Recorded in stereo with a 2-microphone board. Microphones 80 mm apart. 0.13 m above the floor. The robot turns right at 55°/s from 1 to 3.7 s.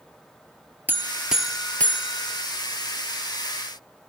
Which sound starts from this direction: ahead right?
A buzzer, at 0.9 s.